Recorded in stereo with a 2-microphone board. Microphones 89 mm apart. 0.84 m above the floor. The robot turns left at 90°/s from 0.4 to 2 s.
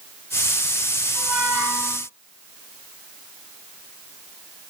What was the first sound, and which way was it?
A squeak, 160° right.